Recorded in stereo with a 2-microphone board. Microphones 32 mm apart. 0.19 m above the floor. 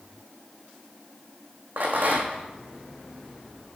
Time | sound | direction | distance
1.8 | a rattle | 70° right (ahead or behind) | 1.6 m